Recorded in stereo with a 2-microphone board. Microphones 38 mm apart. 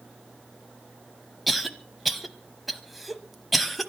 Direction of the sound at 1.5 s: Centre (ahead or behind).